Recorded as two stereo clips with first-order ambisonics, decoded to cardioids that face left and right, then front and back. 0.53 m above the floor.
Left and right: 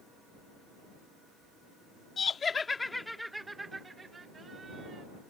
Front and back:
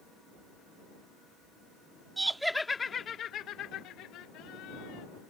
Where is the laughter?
120° left; by 5.0 s 25° right.